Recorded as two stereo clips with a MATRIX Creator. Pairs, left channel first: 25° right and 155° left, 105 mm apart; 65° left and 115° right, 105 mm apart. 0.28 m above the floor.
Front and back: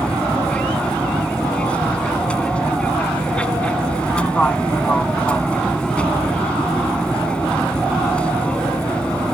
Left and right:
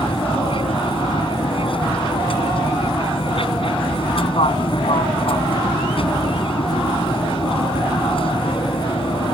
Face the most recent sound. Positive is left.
turn(degrees=55)